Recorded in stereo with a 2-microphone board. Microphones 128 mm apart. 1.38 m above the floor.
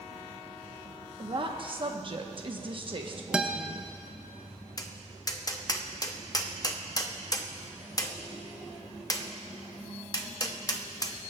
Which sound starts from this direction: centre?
A guitar, at 3.3 s.